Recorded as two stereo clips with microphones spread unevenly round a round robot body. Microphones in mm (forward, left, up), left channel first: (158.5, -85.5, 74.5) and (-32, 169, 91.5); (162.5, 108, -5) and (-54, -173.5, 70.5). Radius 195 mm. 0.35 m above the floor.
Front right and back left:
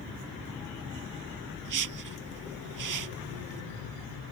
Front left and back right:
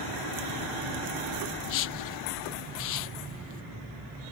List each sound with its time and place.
1.6 s a whoosh: 95° left